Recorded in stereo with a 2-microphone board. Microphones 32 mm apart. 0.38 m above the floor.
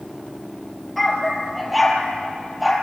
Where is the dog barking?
Centre (ahead or behind), 3.5 m; by 2.7 s 10° right (ahead or behind), 4.5 m.